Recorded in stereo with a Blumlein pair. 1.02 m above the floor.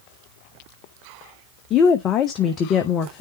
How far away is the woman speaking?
About 0.9 m.